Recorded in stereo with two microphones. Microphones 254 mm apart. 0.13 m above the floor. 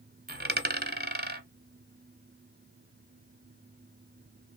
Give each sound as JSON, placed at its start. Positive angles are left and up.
{"t": 0.3, "sound": "a dropped coin", "side_deg": -40, "distance_m": 0.6}